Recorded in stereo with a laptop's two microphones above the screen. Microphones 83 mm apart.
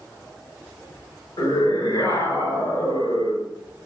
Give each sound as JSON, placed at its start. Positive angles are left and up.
{"t": 1.4, "sound": "a scream", "side_deg": 80, "distance_m": 5.5}